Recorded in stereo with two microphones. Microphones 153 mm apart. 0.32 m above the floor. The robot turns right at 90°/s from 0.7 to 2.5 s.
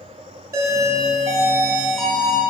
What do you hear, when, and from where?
0.5 s a doorbell: 25° right (ahead or behind), 1.5 m; by 2.4 s 20° left (ahead or behind), 1.5 m